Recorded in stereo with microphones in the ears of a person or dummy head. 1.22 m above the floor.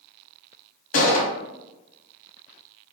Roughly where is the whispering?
I don't hear whispering.